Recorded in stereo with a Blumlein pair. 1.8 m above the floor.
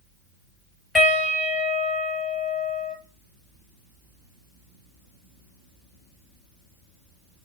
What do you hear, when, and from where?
0.9 s a piano: 10° left, 5 m